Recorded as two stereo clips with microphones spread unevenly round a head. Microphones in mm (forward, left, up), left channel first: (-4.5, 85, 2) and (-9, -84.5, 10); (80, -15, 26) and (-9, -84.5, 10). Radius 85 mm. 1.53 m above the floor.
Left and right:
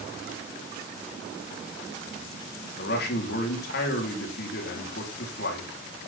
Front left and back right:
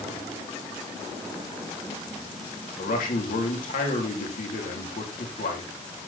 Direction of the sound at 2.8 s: 55° left.